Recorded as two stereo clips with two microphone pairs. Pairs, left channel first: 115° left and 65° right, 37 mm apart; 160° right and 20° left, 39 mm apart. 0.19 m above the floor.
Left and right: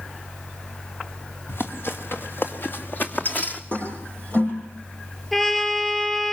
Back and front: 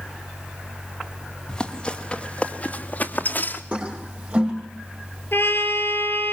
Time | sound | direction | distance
1.5 | running footsteps | 130° left | 3.5 m
3.7 | a toilet flushing | 80° left | 8 m
5.3 | a trumpet | 165° right | 4.5 m